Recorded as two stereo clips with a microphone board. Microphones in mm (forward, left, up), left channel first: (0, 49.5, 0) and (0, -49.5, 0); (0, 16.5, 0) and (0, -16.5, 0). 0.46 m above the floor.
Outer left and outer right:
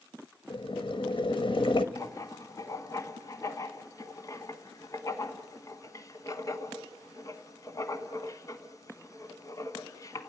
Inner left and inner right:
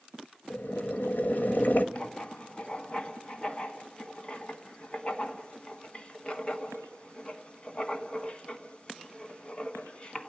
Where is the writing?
35° left (ahead or behind), 1.2 m.